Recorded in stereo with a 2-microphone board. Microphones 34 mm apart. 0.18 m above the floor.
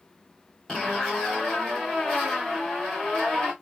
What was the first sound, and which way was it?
A zipper, 30° left (ahead or behind).